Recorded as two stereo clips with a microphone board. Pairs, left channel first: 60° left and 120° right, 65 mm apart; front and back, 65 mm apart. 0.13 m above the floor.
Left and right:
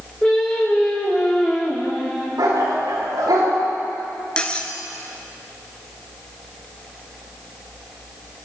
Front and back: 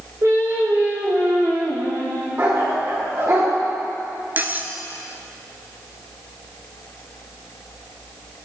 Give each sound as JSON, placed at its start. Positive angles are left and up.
{"t": 0.2, "sound": "singing", "azimuth_deg": 135, "distance_m": 6.0}
{"t": 2.4, "sound": "a dog barking", "azimuth_deg": -130, "distance_m": 8.0}
{"t": 4.4, "sound": "cutlery clinking", "azimuth_deg": 130, "distance_m": 1.3}